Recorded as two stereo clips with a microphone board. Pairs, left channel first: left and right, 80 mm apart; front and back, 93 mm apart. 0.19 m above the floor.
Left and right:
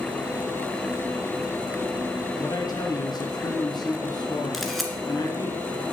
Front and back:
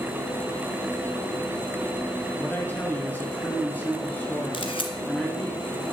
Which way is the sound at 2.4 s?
70° left.